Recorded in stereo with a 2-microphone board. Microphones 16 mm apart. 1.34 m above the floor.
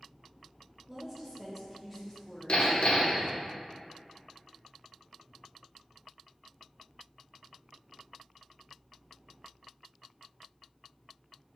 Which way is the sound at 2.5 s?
60° left (ahead or behind).